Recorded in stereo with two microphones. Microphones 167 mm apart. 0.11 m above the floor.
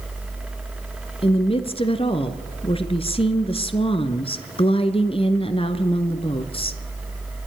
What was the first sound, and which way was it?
A woman speaking, 35° left (ahead or behind).